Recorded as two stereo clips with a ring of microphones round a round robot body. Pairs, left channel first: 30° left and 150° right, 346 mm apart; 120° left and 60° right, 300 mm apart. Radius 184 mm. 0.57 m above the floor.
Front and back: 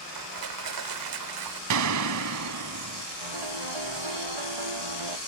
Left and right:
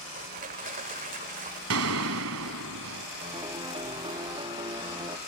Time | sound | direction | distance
0.1 | crushing | 125° right | ?
1.7 | a gunshot | 110° right | ?
3.2 | a piano | 140° right | ?